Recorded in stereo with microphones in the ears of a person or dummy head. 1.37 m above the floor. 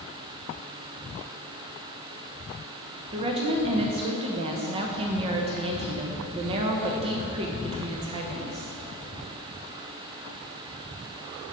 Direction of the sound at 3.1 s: 35° right (ahead or behind).